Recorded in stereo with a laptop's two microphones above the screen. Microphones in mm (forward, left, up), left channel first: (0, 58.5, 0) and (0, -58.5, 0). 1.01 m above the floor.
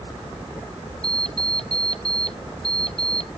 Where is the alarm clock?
55° left (ahead or behind).